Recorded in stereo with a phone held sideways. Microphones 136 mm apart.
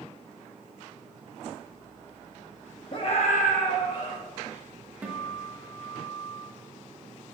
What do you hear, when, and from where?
2.9 s a scream: 40° left (ahead or behind), 1.0 m; by 4.2 s 25° left (ahead or behind), 1.1 m
5.0 s a guitar: 10° right (ahead or behind), 1.2 m